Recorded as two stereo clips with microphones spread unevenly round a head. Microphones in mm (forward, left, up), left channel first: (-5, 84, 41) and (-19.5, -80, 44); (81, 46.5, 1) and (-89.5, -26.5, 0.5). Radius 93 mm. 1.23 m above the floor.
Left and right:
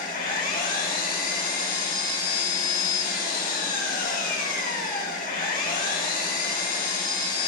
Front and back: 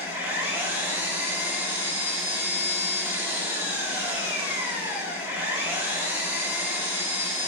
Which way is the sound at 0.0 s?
125° left.